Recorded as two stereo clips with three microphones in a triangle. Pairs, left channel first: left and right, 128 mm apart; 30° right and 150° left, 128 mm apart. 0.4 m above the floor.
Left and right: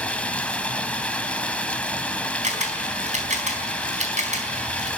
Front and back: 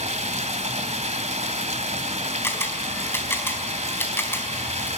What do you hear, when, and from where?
0.0 s running water: 170° left, 1.6 m
2.4 s a camera shutter: 100° right, 4 m